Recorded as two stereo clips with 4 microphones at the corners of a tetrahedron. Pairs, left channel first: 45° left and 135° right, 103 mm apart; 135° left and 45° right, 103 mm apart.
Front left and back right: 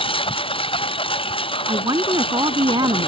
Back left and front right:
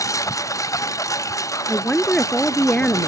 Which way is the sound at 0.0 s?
75° left.